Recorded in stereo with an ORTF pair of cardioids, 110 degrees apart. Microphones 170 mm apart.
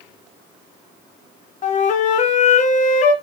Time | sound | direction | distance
1.6 | a flute | 45° left | 0.6 m